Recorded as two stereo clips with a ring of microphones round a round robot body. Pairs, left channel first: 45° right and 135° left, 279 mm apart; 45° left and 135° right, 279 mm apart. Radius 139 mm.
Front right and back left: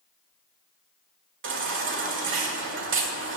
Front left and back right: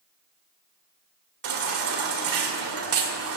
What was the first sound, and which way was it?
A baby crying, 175° right.